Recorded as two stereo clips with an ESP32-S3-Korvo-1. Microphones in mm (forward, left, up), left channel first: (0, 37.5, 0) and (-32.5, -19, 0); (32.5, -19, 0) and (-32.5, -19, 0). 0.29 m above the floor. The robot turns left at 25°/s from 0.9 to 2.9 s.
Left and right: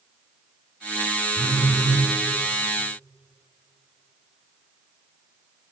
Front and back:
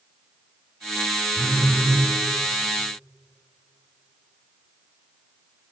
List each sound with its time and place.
1.4 s a phone buzzing: 120° right, 1.8 m; by 2.1 s 140° right, 1.8 m